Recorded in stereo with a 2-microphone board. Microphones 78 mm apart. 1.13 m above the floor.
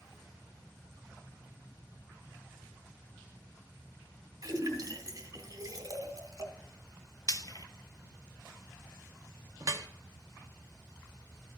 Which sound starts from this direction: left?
Frying, at 7.3 s.